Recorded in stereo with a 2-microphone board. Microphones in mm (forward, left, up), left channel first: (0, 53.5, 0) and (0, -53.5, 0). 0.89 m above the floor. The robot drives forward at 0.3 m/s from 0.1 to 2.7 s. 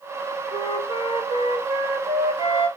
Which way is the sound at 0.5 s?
55° left (ahead or behind).